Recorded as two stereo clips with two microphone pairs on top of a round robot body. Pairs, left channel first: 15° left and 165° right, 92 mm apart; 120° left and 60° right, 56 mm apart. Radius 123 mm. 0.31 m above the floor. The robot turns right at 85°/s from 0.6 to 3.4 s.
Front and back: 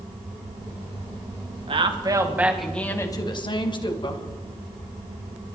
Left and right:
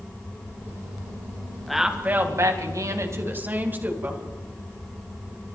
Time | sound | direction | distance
1.7 | a woman speaking | 150° right | 3.5 m